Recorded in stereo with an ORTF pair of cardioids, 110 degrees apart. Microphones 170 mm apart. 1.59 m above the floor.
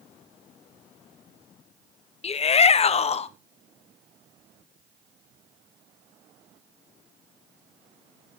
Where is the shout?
35° left, 1.2 m.